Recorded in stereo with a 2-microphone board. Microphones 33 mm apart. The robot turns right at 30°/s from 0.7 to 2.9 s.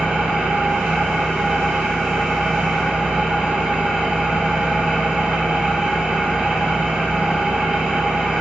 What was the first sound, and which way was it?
An engine running, 85° right.